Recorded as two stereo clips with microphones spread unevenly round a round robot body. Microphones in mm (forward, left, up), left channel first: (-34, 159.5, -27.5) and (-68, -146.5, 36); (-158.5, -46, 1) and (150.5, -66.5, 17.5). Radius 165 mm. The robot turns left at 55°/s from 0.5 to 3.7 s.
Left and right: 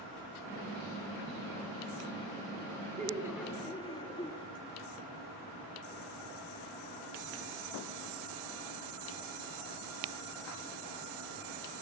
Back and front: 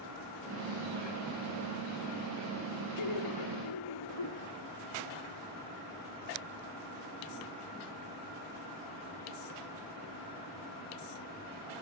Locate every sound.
3.0 s laughter: 165° right, 5 m; by 4.5 s 155° left, 5 m